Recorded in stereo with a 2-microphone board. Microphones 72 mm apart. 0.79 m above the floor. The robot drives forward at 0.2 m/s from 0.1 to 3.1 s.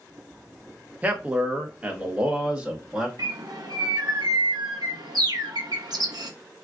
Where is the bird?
65° right (ahead or behind), 0.6 m.